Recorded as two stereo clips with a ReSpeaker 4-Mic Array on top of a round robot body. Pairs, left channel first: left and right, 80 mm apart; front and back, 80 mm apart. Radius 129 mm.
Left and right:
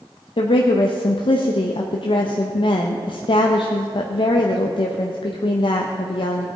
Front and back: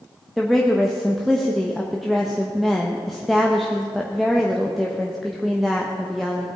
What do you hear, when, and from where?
0.4 s a woman speaking: 90° left, 1.0 m